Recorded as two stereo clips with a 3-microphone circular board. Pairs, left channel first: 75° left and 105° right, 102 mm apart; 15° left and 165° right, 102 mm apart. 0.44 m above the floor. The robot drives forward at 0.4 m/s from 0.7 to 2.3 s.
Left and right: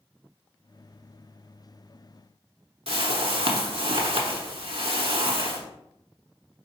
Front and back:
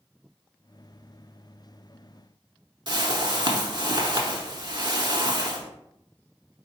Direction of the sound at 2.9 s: 125° right.